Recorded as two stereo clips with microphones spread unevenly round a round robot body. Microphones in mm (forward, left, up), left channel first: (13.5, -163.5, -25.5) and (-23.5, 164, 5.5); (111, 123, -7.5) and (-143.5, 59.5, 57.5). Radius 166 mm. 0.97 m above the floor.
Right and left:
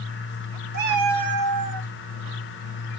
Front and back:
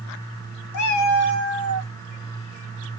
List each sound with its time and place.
0.7 s a cat meowing: 35° left, 0.7 m; by 1.9 s 60° left, 1.3 m